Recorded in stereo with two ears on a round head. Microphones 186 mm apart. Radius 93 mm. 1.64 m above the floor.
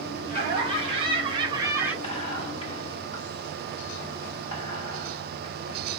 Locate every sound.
0.3 s laughter: 25° right (ahead or behind), 1.3 m; by 1.9 s 10° right (ahead or behind), 0.5 m
2.0 s whispering: 25° left (ahead or behind), 1.0 m